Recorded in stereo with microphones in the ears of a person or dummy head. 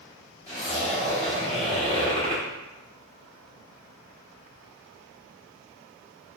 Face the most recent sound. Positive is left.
turn(degrees=20)  # may be behind; listen again after turning